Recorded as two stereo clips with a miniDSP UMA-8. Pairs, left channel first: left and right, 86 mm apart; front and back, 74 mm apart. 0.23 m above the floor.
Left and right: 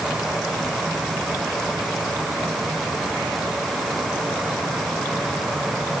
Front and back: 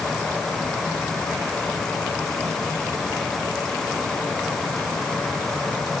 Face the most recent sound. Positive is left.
No sound to turn to.